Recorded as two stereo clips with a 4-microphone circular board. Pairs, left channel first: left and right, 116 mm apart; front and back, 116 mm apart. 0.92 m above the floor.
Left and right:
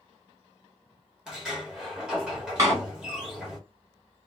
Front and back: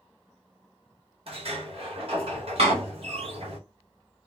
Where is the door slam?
150° right, 1.2 m.